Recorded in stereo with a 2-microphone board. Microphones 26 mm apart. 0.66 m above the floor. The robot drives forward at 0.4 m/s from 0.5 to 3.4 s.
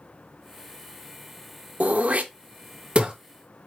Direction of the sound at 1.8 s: 75° right (ahead or behind).